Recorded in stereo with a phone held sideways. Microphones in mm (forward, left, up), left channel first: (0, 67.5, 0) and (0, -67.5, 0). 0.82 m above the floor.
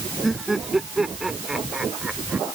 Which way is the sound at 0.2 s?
Centre (ahead or behind).